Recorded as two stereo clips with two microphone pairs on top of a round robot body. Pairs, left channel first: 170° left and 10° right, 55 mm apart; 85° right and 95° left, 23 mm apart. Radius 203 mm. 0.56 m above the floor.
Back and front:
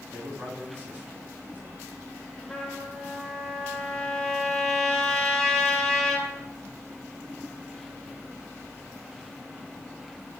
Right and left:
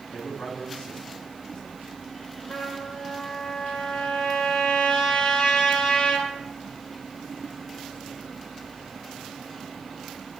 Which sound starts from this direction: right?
A trumpet, at 2.5 s.